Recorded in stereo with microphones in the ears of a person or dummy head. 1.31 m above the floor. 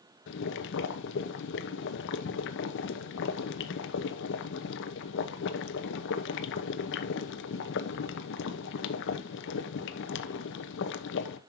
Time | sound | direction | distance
0.3 | boiling | 60° left (ahead or behind) | 1.1 m